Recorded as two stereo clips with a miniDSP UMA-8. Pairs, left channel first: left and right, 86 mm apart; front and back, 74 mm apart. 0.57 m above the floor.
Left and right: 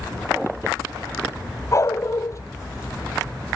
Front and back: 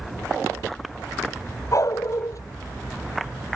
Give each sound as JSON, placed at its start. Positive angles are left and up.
{"t": 1.7, "sound": "a dog barking", "azimuth_deg": 40}